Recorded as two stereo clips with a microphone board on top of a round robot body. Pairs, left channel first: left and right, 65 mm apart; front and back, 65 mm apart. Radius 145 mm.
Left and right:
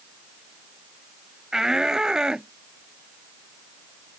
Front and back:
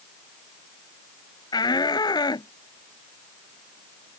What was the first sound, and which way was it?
A shout, 5° right.